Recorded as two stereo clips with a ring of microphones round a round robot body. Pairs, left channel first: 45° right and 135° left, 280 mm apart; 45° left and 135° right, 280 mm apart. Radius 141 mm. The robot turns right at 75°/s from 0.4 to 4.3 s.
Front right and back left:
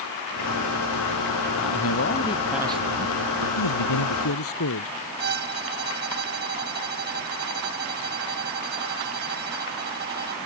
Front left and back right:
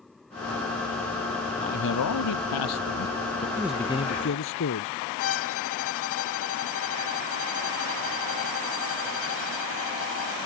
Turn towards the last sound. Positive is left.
turn(degrees=85)